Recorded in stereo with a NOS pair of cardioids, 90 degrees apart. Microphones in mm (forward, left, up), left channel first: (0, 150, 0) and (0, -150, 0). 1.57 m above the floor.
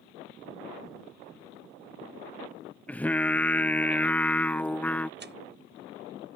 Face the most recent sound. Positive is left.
turn(degrees=-35)